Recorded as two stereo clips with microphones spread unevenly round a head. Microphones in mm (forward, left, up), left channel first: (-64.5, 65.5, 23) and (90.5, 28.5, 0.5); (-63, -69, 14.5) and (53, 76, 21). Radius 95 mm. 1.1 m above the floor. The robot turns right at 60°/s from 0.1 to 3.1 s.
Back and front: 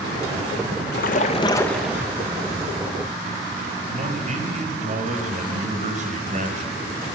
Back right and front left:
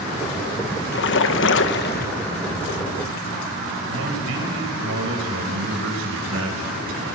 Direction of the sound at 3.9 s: 30° left.